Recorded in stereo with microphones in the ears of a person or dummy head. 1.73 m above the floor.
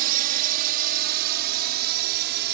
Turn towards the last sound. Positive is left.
turn(degrees=-55)  # may be behind; listen again after turning